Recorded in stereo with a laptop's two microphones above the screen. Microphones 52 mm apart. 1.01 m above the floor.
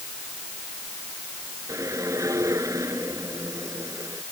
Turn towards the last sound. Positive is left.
turn(degrees=-85)